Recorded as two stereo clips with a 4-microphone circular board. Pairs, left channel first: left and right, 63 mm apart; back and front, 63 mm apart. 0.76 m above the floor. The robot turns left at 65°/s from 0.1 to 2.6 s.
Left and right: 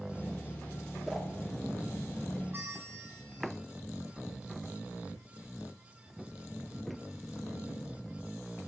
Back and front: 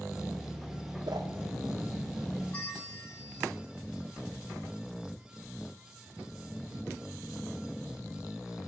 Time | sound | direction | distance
1.1 | a whoosh | 5° left | 0.5 m
2.5 | a bell | 125° right | 1.2 m